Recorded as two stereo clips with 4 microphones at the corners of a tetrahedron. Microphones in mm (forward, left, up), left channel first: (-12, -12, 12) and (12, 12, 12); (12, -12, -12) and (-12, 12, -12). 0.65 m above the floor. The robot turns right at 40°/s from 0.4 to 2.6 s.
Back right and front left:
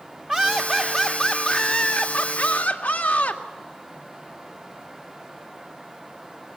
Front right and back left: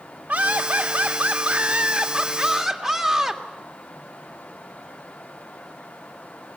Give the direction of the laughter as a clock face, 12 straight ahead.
8 o'clock.